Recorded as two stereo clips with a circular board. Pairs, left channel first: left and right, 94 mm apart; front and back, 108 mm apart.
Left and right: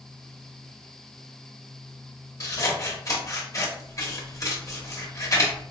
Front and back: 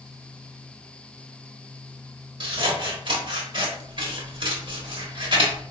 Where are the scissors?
140° left, 1.0 m.